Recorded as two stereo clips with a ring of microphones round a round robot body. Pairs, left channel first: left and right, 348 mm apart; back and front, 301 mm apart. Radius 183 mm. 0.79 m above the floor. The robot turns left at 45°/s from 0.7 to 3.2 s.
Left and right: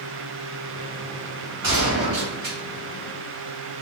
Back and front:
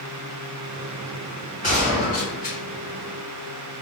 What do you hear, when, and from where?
1.6 s a gunshot: 115° right, 1.7 m; by 2.6 s 155° right, 1.7 m